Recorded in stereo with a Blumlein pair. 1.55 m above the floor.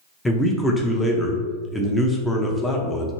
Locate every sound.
0.2 s a man speaking: 10° left, 0.5 m